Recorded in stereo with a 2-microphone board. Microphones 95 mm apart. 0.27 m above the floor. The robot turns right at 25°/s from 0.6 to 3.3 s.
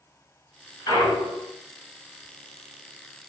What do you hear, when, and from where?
0.9 s a clunk: 45° left (ahead or behind), 1.1 m; by 1.5 s 60° left (ahead or behind), 1.1 m